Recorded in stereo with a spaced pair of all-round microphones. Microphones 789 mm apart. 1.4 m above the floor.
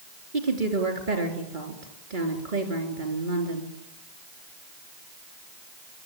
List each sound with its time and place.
0.3 s a woman speaking: 80° right, 3.5 m